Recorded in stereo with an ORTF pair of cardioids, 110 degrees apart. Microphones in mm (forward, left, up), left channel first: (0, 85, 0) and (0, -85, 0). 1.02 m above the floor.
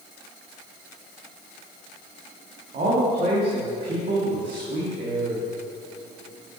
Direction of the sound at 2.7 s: 55° right.